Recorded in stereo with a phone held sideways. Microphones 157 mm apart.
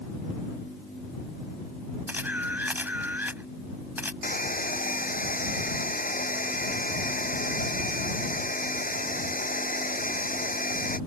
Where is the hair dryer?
60° left (ahead or behind).